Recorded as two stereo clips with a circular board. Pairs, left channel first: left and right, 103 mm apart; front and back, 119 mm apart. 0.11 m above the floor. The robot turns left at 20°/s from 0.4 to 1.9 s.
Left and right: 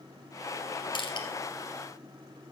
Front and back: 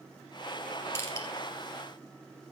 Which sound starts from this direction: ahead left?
Crushing, at 0.9 s.